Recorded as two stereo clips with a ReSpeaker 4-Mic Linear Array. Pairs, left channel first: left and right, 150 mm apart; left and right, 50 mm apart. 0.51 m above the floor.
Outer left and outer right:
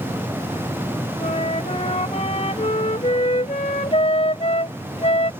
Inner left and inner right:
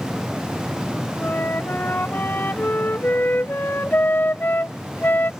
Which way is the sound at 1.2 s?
45° left (ahead or behind).